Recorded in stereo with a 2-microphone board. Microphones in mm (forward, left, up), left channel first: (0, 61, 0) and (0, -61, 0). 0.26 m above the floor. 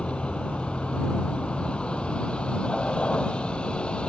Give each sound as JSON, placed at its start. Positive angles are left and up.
{"t": 0.0, "sound": "a vehicle", "side_deg": 10}